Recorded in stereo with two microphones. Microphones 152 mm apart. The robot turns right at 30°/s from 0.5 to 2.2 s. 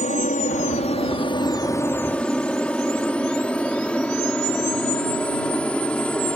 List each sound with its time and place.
0.0 s an aircraft: 55° left (ahead or behind); by 6.4 s 5° left (ahead or behind)